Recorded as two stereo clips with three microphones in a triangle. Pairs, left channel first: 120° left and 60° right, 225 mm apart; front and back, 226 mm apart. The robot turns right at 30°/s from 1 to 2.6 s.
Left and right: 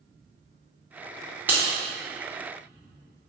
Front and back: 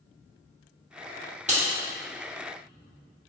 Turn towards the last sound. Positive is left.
turn(degrees=-105)